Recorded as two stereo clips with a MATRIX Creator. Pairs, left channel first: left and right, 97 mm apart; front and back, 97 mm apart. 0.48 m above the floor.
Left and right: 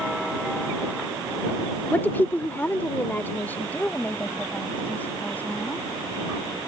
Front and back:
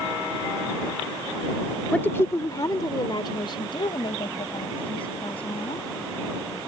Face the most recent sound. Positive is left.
turn(degrees=15)